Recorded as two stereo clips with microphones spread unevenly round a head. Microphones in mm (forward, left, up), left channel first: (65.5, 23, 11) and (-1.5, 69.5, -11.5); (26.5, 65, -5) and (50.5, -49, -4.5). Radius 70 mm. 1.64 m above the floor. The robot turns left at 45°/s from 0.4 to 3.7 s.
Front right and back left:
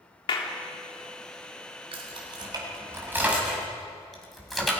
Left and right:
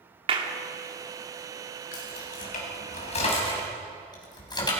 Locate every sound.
0.3 s a clap: 40° right, 3.5 m; by 0.5 s 45° right, 3.5 m
1.9 s keys jangling: 130° left, 6.5 m; by 4.7 s 50° left, 6.5 m